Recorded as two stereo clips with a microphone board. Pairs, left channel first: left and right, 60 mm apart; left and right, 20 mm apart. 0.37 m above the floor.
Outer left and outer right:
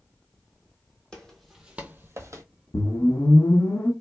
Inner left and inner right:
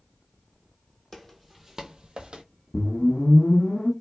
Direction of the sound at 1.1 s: 10° left (ahead or behind).